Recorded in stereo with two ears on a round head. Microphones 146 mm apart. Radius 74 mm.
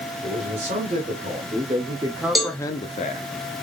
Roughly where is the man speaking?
Right.